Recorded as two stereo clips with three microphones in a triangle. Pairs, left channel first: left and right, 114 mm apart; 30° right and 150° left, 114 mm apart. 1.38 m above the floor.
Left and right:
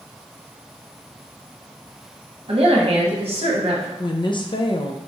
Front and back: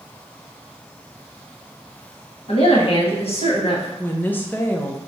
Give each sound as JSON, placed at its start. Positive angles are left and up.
{"t": 2.5, "sound": "a woman speaking", "azimuth_deg": -60, "distance_m": 1.0}
{"t": 4.0, "sound": "a woman speaking", "azimuth_deg": 45, "distance_m": 0.5}